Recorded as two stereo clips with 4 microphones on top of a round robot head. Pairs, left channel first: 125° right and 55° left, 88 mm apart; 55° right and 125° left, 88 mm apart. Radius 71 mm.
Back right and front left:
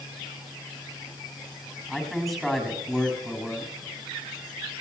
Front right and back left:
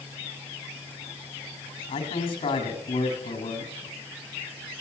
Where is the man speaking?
35° right, 8 m.